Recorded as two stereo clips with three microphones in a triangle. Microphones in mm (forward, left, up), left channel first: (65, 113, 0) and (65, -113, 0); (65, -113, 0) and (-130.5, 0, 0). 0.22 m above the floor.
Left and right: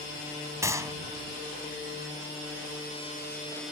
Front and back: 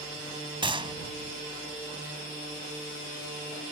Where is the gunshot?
160° right.